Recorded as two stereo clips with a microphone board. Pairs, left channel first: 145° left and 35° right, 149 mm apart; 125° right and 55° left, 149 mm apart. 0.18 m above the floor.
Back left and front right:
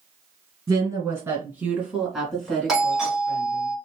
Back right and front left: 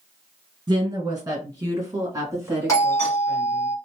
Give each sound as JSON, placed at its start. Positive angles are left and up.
{"t": 0.7, "sound": "a woman speaking", "azimuth_deg": 15, "distance_m": 1.8}
{"t": 2.7, "sound": "a doorbell", "azimuth_deg": -115, "distance_m": 1.5}